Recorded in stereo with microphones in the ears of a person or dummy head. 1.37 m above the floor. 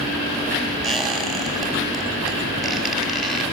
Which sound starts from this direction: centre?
A squeak, at 0.8 s.